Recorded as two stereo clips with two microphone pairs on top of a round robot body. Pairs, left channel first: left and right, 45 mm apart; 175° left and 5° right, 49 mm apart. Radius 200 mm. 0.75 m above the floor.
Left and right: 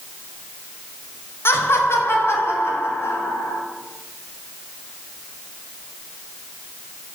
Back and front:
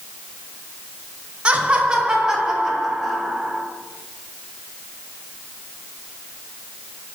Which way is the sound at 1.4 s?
60° left.